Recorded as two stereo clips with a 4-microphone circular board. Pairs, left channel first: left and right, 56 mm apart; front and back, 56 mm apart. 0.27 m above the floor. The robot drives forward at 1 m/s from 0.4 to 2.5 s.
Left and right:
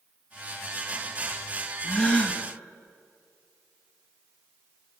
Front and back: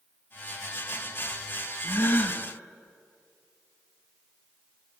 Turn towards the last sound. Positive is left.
turn(degrees=60)